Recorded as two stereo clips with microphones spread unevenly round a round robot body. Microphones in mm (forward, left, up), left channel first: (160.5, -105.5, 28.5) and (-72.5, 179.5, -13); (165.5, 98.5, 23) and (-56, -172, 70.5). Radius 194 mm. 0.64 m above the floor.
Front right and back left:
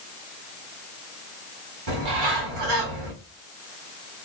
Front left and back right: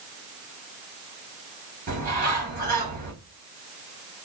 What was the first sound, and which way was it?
A bird, 160° left.